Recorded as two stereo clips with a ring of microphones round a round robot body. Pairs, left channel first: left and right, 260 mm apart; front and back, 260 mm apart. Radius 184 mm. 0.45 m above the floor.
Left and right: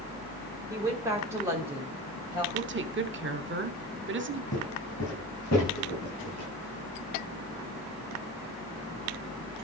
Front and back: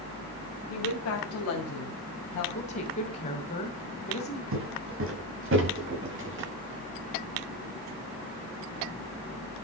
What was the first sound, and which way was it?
A woman speaking, 15° right.